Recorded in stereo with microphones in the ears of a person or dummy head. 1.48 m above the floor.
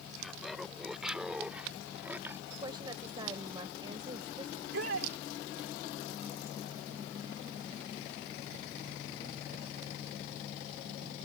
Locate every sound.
0.2 s laughter: centre (ahead or behind); by 2.4 s 10° right (ahead or behind)
2.5 s a woman speaking: 30° right (ahead or behind)
4.5 s a shout: 75° right (ahead or behind)